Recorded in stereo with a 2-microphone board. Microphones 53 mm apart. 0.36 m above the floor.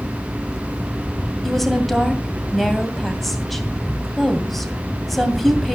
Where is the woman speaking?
Centre (ahead or behind), 2 m.